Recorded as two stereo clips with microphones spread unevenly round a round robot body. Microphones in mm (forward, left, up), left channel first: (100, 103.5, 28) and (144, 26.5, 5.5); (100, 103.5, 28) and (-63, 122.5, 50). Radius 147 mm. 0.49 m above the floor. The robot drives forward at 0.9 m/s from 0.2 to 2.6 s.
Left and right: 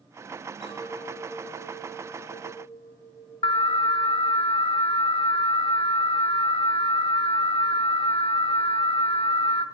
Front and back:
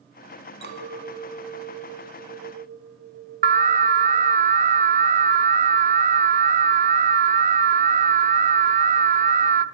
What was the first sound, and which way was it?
A clink, 165° left.